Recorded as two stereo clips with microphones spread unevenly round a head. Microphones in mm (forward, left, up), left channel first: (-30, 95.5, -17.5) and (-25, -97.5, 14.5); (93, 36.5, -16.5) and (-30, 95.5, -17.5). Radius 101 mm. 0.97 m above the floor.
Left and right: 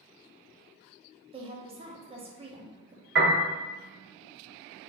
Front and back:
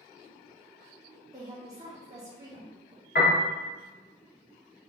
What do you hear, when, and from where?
1.3 s a woman speaking: 150° right, 0.7 m
3.1 s a piano: 50° right, 1.1 m